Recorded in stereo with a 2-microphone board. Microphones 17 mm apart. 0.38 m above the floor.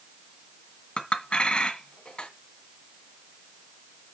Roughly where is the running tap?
No running tap in this recording.